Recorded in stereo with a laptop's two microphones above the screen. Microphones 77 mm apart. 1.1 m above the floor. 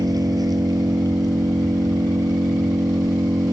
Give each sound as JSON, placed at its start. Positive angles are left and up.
{"t": 0.0, "sound": "an engine running", "side_deg": -55}